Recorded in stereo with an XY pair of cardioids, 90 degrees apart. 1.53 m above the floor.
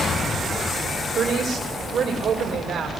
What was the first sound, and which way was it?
A woman speaking, 55° right.